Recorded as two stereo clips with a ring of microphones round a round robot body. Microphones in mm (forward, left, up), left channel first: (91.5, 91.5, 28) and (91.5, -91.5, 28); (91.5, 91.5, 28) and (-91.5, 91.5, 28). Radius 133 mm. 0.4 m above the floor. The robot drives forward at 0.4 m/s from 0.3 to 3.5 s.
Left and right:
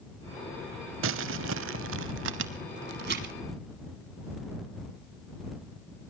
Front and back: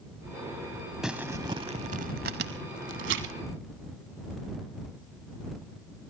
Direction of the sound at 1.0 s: 90° right.